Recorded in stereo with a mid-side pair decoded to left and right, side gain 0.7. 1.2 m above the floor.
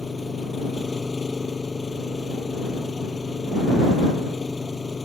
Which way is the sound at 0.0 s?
15° left.